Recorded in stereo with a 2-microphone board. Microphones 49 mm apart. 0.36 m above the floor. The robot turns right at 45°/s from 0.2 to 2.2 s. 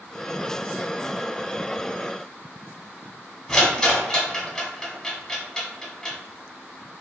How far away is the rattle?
About 0.6 m.